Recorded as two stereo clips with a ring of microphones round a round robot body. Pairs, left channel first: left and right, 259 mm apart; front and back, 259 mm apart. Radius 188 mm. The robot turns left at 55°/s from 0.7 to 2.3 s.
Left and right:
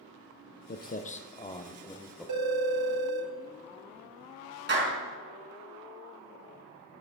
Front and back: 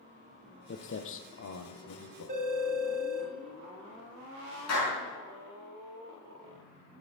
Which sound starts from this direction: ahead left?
Footsteps, at 0.7 s.